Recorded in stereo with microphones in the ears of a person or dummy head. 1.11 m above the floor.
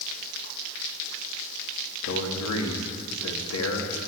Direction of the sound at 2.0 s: 80° left.